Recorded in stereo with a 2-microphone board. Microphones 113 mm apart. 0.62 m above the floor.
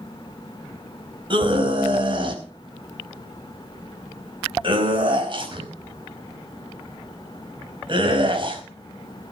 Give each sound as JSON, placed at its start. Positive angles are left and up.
{"t": 1.3, "sound": "a scream", "side_deg": -45, "distance_m": 4.5}